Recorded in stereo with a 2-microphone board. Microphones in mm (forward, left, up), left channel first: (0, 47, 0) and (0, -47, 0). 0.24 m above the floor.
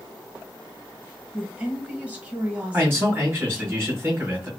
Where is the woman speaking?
20° right (ahead or behind), 1.7 m.